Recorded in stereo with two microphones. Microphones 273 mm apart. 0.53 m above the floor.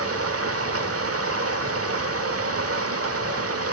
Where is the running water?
55° right (ahead or behind), 1.2 m.